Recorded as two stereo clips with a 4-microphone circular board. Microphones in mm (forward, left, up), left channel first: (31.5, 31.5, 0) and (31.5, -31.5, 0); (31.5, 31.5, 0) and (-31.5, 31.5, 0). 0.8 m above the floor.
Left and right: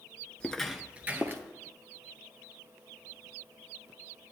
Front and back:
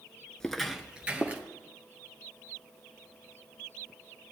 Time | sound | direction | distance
0.4 | footsteps | 60° left | 0.7 m